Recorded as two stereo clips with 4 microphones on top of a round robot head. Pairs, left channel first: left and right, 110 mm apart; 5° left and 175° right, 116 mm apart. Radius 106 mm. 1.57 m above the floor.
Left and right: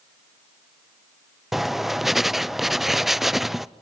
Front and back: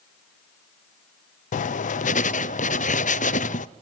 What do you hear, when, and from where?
1.5 s writing: straight ahead, 0.7 m